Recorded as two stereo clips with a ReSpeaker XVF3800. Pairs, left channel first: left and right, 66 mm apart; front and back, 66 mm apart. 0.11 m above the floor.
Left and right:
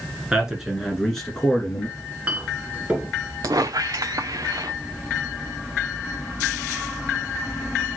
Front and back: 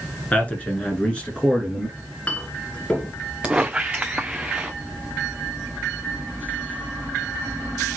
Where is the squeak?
105° right, 0.6 m.